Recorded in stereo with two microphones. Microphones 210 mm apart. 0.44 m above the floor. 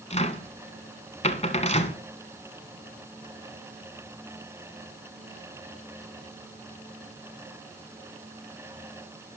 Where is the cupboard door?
30° left (ahead or behind), 1.7 m.